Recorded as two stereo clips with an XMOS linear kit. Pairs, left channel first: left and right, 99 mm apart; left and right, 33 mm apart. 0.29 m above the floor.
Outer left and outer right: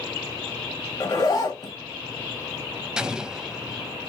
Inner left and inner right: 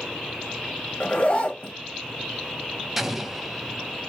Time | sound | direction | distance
1.0 | a zipper | 40° left (ahead or behind) | 1.2 m
3.0 | an explosion | 10° right (ahead or behind) | 0.5 m